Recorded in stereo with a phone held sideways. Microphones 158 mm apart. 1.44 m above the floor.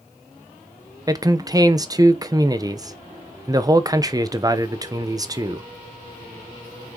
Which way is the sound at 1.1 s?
25° right (ahead or behind).